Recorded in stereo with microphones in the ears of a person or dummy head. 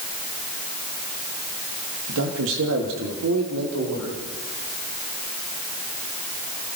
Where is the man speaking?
70° right (ahead or behind), 2.5 m; by 4.2 s 90° right, 4.5 m.